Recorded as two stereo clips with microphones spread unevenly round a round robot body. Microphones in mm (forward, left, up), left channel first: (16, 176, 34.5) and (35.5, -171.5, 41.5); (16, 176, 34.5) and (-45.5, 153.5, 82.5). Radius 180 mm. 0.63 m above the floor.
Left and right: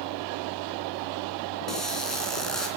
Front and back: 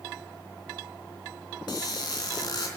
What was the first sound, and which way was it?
A squeak, 5° left.